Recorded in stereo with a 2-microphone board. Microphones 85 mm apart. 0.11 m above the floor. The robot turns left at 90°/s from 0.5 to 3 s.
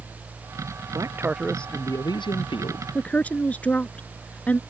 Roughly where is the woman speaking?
Centre.